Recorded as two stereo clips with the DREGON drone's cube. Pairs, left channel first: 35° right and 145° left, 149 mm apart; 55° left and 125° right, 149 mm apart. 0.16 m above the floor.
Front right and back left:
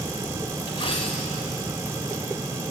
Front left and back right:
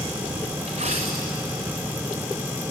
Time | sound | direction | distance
0.7 | a dropped coin | 90° right | 3.5 m